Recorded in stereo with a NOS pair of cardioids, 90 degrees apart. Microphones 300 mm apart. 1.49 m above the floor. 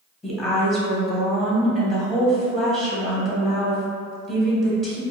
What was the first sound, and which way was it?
A woman speaking, straight ahead.